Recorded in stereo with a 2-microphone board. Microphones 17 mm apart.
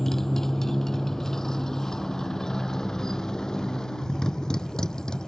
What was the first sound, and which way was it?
A motorcycle, 25° left (ahead or behind).